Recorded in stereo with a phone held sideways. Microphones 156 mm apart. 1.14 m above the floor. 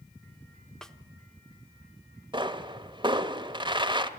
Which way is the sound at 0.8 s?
5° left (ahead or behind).